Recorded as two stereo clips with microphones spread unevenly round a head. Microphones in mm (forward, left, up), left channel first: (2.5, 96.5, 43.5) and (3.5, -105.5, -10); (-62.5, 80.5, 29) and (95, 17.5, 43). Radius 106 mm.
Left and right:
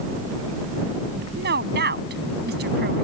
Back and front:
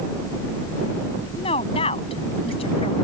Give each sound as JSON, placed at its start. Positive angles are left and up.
{"t": 1.4, "sound": "a woman speaking", "azimuth_deg": -135}